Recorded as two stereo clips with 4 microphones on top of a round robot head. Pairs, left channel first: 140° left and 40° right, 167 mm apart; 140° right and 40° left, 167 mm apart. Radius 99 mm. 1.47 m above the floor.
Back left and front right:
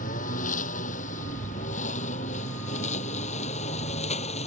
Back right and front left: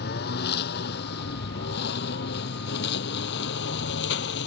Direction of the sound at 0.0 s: 175° right.